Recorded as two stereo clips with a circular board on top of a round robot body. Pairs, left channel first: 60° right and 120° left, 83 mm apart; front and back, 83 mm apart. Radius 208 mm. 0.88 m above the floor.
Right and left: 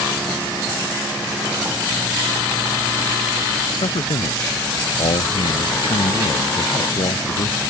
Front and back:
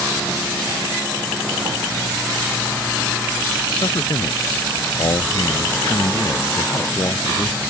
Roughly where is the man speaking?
Ahead right.